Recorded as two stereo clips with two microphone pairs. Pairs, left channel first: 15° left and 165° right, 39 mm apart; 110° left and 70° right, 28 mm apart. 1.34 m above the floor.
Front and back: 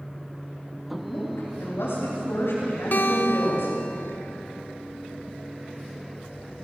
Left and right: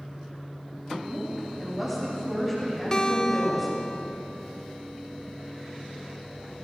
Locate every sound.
1.0 s a woman speaking: 15° left, 8.5 m
2.9 s a guitar: 45° left, 1.1 m